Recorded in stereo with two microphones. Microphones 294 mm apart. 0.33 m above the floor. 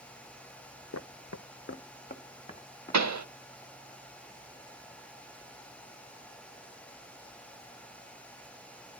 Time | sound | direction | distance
0.9 | footsteps | 55° left (ahead or behind) | 0.7 m
2.9 | a pop | 65° right (ahead or behind) | 0.5 m